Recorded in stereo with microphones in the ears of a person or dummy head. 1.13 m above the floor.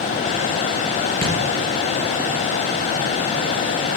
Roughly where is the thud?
Centre.